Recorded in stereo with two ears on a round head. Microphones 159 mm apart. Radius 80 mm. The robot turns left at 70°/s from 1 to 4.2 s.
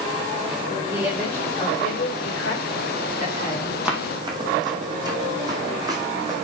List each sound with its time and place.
0.9 s a woman speaking: 165° right, 4 m; by 3.8 s straight ahead, 4 m
3.9 s running footsteps: 5° right (ahead or behind), 2.5 m; by 6.4 s 20° right (ahead or behind), 3.5 m